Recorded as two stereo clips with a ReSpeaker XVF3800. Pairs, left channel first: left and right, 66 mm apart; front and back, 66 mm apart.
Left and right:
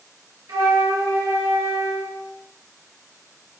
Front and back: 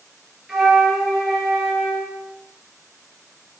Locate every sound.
0.5 s a flute: 95° right, 2.5 m